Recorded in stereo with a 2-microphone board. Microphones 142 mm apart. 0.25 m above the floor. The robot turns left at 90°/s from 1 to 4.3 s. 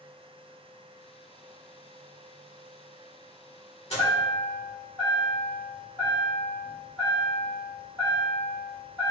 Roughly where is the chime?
Left.